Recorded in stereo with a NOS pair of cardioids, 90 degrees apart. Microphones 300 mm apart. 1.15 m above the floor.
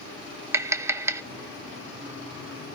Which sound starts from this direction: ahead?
Tapping, at 0.5 s.